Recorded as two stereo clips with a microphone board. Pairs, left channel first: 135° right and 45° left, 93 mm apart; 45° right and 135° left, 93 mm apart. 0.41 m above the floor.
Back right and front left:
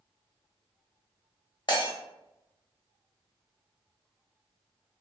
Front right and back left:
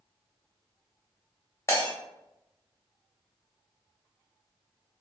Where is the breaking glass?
105° right, 0.8 m.